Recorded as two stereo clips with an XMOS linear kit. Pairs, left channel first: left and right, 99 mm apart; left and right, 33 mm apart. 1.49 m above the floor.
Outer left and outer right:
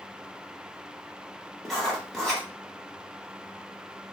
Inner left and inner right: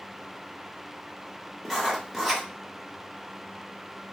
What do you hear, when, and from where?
1.6 s writing: 5° left (ahead or behind), 0.9 m